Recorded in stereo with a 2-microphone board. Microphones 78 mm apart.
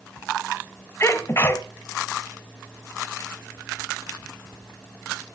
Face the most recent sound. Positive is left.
turn(degrees=35)  # may be behind; listen again after turning